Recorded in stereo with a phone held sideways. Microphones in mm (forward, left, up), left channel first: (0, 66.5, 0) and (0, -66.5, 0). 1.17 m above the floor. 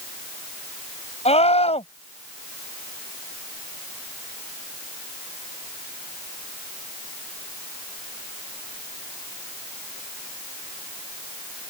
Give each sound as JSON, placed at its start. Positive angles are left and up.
{"t": 1.2, "sound": "a scream", "side_deg": 55}